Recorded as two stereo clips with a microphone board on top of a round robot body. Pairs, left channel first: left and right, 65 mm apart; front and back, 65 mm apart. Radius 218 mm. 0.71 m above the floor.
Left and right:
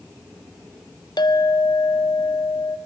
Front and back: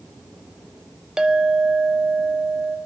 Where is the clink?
100° left, 1.4 m.